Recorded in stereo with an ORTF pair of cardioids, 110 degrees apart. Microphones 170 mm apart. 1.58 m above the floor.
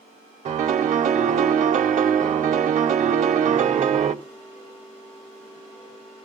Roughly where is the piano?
Ahead right.